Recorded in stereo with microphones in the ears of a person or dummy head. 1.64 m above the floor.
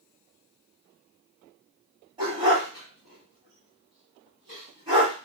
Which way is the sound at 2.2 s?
30° right (ahead or behind).